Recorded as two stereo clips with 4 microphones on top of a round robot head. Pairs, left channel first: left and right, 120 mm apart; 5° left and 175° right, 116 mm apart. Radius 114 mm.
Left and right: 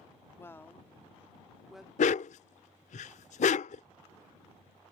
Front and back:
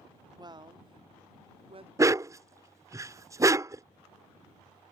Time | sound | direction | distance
0.4 | a woman speaking | 150° left | ?
2.0 | a dog barking | 120° left | ?